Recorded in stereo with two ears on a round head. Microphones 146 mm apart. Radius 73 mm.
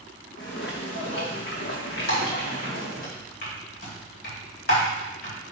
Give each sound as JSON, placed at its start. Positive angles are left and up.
{"t": 0.4, "sound": "footsteps", "side_deg": 75, "distance_m": 2.0}
{"t": 2.1, "sound": "typing on a keyboard", "side_deg": 60, "distance_m": 2.5}